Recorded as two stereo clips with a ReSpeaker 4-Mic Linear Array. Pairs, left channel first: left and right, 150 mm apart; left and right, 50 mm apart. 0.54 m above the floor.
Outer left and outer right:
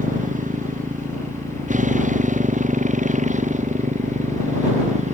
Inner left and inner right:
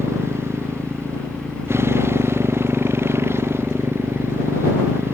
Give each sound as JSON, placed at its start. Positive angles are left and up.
{"t": 0.0, "sound": "a motorcycle", "side_deg": -55}